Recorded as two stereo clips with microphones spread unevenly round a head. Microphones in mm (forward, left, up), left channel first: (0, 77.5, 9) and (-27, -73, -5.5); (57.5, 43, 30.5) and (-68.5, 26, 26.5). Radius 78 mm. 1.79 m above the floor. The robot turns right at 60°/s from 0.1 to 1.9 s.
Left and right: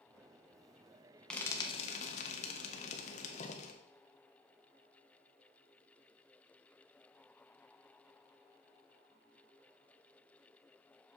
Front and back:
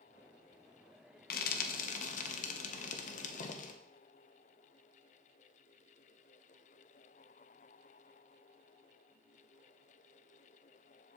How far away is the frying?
About 1.0 m.